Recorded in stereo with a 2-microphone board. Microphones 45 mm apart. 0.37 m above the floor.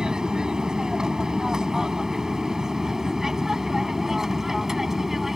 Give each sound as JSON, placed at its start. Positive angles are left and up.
{"t": 0.0, "sound": "an aircraft", "side_deg": -15}